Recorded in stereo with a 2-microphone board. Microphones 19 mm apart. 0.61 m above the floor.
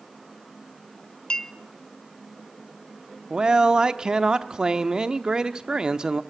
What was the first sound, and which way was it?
A clink, 55° left (ahead or behind).